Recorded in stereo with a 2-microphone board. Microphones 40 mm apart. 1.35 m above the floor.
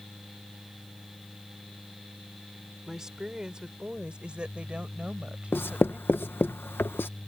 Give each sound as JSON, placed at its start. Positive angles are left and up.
{"t": 2.9, "sound": "a woman speaking", "side_deg": -15}
{"t": 5.5, "sound": "writing", "side_deg": 60}